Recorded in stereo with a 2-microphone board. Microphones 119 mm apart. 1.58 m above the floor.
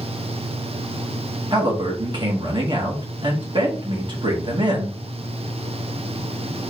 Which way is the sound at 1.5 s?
40° right (ahead or behind).